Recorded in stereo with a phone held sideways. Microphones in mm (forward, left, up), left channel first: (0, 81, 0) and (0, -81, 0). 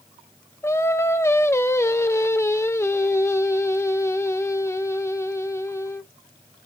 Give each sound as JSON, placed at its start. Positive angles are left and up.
{"t": 0.6, "sound": "singing", "side_deg": 15, "distance_m": 0.6}